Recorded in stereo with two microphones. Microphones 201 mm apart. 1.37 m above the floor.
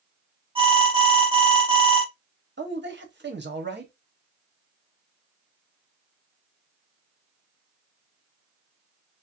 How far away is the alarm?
About 1.0 m.